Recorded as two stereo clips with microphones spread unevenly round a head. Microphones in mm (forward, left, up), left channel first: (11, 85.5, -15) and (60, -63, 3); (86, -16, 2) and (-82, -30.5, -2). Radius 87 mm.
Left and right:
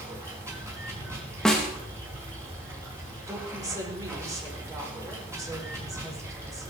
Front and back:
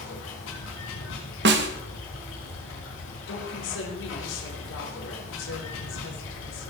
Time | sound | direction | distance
0.0 | running water | straight ahead | 5.5 m
1.4 | a snare drum | 165° right | 1.4 m
3.3 | a woman speaking | straight ahead | 4 m